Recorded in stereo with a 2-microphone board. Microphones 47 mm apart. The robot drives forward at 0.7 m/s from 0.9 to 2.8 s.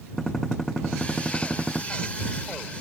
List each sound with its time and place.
0.2 s a gunshot: 5° left (ahead or behind)